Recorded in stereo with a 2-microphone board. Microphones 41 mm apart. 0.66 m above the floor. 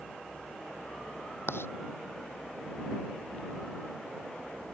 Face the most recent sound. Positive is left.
turn(degrees=75)  # may be behind; listen again after turning